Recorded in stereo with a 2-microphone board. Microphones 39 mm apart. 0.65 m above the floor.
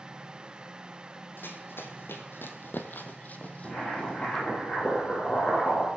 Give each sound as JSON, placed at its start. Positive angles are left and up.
{"t": 1.4, "sound": "running footsteps", "side_deg": 55, "distance_m": 1.5}
{"t": 3.6, "sound": "boiling", "side_deg": 25, "distance_m": 7.0}